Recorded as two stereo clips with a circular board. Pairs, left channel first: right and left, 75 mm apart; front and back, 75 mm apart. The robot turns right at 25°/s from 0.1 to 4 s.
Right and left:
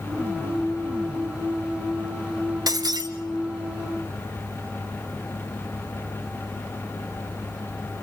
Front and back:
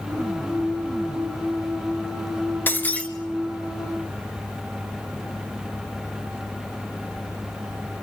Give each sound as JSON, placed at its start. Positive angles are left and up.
{"t": 2.7, "sound": "breaking glass", "azimuth_deg": 60, "distance_m": 1.5}